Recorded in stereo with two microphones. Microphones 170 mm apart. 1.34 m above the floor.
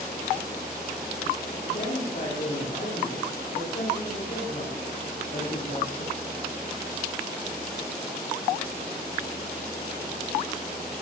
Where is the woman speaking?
60° left (ahead or behind), 3.5 m.